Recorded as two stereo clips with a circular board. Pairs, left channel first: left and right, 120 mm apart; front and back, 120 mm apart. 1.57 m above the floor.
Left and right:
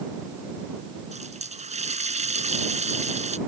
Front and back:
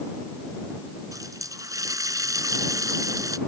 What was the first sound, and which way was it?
A running tap, 115° right.